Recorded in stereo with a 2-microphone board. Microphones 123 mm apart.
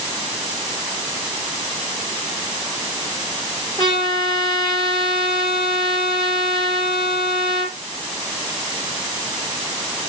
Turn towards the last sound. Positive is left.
turn(degrees=35)  # may be behind; listen again after turning